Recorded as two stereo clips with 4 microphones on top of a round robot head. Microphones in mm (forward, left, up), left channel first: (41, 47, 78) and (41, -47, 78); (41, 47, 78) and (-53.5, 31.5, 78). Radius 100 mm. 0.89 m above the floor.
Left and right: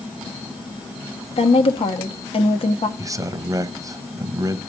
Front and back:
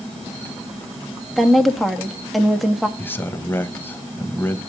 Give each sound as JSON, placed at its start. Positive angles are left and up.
{"t": 1.4, "sound": "a woman speaking", "azimuth_deg": 100, "distance_m": 1.5}
{"t": 3.0, "sound": "a man speaking", "azimuth_deg": -50, "distance_m": 1.3}